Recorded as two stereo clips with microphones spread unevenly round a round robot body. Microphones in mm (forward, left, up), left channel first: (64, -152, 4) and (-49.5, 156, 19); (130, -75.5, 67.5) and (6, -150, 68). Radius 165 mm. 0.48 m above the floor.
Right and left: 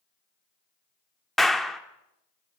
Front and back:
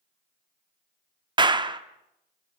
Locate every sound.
1.4 s a clap: 155° right, 1.1 m